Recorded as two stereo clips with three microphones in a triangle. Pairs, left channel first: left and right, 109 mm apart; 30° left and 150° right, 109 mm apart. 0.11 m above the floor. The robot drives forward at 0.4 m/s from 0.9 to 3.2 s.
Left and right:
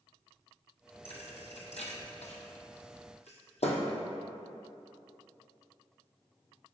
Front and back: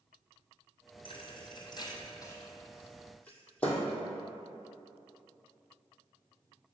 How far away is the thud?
About 1.3 m.